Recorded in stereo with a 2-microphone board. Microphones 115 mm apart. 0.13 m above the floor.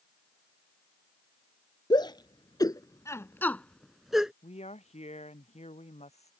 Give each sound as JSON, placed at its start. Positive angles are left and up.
{"t": 1.9, "sound": "a shout", "side_deg": 40}
{"t": 4.4, "sound": "a woman speaking", "side_deg": 75}